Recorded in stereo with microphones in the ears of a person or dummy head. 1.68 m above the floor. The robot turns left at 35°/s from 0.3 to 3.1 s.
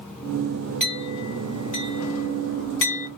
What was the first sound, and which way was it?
A clink, 5° left (ahead or behind).